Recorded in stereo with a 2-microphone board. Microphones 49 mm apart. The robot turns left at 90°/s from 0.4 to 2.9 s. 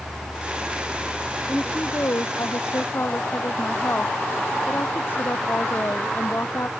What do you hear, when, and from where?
1.5 s a woman speaking: 175° left; by 6.7 s 45° left